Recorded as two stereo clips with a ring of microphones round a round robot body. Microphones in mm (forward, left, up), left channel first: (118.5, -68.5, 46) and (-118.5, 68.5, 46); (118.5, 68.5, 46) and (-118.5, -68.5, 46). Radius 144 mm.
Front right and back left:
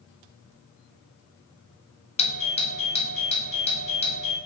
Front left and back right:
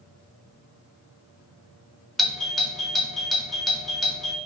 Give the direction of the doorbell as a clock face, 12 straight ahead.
2 o'clock.